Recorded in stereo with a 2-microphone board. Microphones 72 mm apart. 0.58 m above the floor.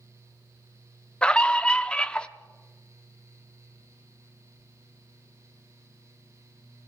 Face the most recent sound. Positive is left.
turn(degrees=15)  # may be behind; listen again after turning